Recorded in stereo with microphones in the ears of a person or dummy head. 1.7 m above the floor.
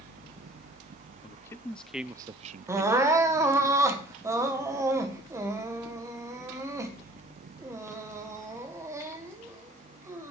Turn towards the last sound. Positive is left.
turn(degrees=-20)  # may be behind; listen again after turning